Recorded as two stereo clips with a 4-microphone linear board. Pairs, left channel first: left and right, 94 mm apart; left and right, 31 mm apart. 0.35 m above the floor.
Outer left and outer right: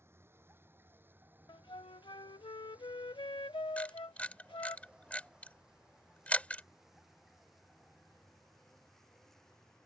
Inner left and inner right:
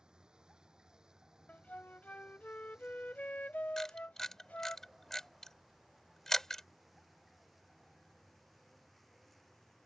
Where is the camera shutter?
15° left (ahead or behind).